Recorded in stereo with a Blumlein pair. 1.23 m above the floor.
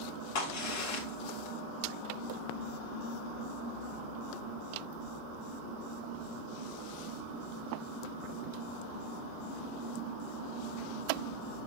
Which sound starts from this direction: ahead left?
A crack, at 0.3 s.